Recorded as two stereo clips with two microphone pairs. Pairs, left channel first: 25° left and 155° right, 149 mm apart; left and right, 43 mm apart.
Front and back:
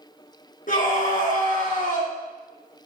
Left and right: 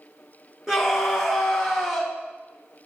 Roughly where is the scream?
Ahead.